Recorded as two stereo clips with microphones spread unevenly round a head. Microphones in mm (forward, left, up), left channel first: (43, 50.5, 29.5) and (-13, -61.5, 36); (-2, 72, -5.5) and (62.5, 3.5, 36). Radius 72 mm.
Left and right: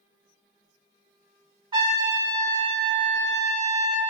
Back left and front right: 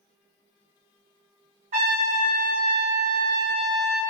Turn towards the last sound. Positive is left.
turn(degrees=-60)